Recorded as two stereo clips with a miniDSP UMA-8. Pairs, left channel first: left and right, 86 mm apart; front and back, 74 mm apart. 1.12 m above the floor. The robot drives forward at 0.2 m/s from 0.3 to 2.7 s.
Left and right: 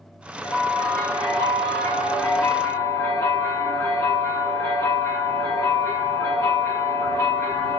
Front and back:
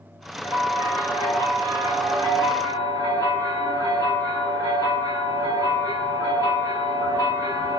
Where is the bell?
135° left, 1.1 m; by 7.8 s 150° left, 1.4 m.